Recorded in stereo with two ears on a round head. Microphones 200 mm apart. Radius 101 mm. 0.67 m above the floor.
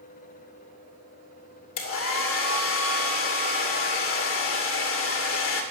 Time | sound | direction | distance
1.8 | a hair dryer | 60° left (ahead or behind) | 2.5 m